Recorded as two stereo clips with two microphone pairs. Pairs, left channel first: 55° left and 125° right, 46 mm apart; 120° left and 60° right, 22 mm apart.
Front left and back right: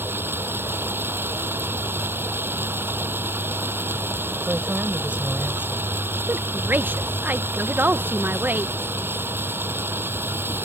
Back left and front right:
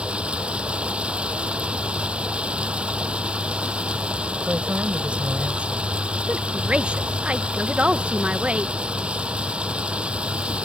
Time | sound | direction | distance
0.0 | running water | 85° right | ?
4.5 | a woman speaking | 60° right | ?
6.3 | a woman speaking | 75° right | ?